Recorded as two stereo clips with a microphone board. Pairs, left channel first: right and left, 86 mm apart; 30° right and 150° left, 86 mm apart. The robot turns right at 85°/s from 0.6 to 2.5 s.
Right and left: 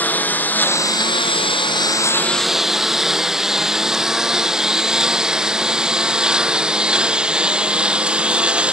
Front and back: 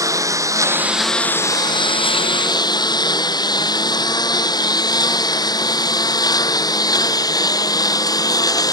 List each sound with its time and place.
0.0 s a lawn mower: 160° right; by 8.7 s 15° left